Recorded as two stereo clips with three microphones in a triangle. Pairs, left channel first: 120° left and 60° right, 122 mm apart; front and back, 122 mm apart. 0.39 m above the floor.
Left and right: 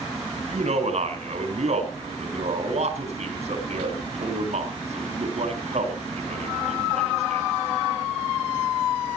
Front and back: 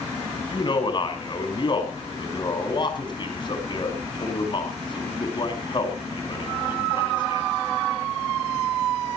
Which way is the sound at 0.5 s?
45° right.